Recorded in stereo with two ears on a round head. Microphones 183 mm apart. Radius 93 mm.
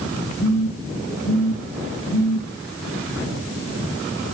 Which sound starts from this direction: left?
A phone buzzing, at 0.4 s.